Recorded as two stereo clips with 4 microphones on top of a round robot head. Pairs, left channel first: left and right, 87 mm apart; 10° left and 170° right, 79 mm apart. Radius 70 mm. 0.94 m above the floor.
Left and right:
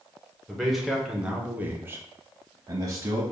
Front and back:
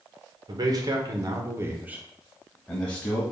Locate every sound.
0.5 s a man speaking: 175° left, 1.0 m; by 3.2 s 55° right, 1.0 m